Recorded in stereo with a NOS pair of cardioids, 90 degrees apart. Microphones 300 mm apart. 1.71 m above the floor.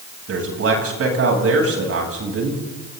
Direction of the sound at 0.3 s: 50° right.